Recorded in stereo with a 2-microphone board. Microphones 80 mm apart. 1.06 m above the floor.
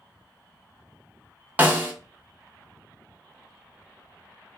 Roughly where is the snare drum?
Right.